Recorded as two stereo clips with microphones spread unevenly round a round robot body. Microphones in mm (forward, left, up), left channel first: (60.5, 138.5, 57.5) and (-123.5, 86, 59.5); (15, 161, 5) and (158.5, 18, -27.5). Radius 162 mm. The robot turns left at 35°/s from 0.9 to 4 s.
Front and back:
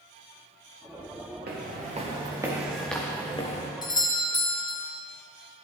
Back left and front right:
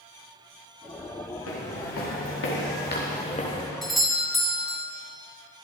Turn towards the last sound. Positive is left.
turn(degrees=20)